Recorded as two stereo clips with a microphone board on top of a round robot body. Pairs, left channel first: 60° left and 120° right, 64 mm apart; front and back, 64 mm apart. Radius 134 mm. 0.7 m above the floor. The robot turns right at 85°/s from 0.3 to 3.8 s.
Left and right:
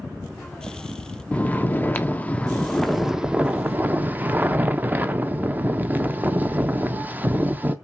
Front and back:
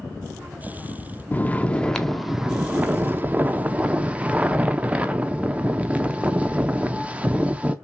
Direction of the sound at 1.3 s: 15° left.